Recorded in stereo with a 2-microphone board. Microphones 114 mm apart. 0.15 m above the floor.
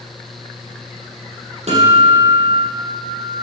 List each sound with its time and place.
1.7 s a guitar: 70° right (ahead or behind), 5 m